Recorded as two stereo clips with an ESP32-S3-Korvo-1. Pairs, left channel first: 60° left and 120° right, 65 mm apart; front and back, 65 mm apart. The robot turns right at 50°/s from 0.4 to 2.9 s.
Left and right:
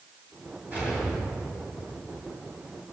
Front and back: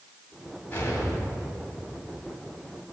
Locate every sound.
0.7 s an explosion: 60° right, 2.5 m; by 1.8 s 5° right, 2.5 m